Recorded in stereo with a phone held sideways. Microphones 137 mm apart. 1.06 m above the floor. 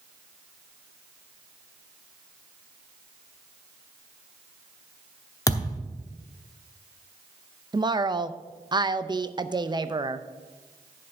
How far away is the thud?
About 0.9 m.